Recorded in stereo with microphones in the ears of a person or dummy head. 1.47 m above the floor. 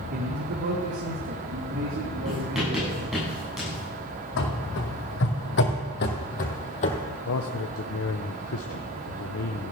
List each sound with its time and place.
0.1 s a man speaking: 40° right (ahead or behind), 1.2 m; by 3.0 s 65° right (ahead or behind), 4.5 m
2.2 s writing: centre (ahead or behind), 7.5 m
4.4 s running footsteps: 65° left (ahead or behind), 3.5 m; by 7.0 s 35° left (ahead or behind), 2.5 m
7.2 s a man speaking: 70° left (ahead or behind), 1.1 m